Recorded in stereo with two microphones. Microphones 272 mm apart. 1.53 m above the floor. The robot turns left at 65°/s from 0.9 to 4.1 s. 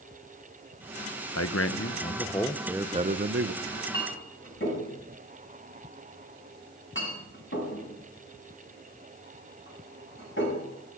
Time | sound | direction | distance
1.4 | a man speaking | 80° left | 0.9 m
3.6 | a clink | 20° left (ahead or behind) | 7 m